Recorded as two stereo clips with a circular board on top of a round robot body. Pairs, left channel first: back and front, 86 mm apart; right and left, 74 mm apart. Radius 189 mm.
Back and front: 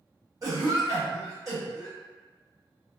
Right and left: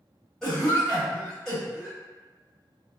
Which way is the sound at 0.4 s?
5° right.